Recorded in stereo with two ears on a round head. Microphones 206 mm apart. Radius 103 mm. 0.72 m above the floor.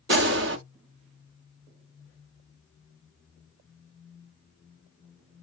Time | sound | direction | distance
0.1 | a gunshot | 50° right (ahead or behind) | 0.8 m